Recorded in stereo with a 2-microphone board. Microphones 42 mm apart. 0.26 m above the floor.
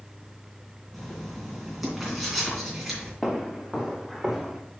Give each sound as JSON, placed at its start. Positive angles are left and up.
{"t": 0.9, "sound": "writing", "side_deg": -5, "distance_m": 3.0}
{"t": 3.2, "sound": "footsteps", "side_deg": 0, "distance_m": 2.0}